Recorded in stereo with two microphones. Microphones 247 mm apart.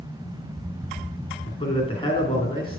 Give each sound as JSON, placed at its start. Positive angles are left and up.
{"t": 1.5, "sound": "a man speaking", "side_deg": 25, "distance_m": 1.6}